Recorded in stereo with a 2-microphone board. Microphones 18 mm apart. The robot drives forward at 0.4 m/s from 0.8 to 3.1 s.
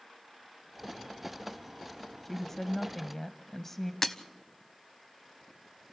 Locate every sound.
2.2 s a woman speaking: 20° left (ahead or behind), 1.0 m
4.0 s breaking glass: 25° left (ahead or behind), 0.9 m